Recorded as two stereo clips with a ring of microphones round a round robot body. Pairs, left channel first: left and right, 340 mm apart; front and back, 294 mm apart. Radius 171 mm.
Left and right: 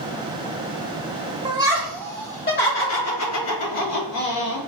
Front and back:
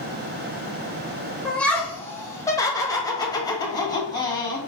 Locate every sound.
1.4 s laughter: 80° right, 1.0 m; by 4.6 s 75° left, 2.5 m